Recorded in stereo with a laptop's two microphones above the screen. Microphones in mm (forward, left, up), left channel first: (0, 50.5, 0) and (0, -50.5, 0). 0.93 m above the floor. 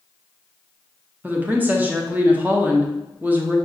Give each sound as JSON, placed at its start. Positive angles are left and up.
{"t": 1.2, "sound": "a woman speaking", "side_deg": -15, "distance_m": 0.5}